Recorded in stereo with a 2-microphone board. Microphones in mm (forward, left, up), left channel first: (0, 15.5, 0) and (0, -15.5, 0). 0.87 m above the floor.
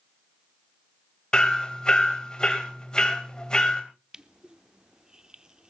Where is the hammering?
25° left (ahead or behind), 2.5 m.